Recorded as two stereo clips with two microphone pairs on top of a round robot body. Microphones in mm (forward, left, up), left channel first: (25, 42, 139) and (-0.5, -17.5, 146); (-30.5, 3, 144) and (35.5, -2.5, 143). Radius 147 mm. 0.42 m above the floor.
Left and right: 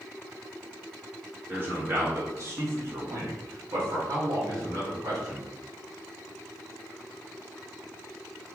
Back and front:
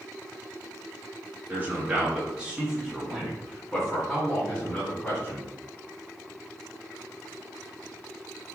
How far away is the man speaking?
About 1.9 m.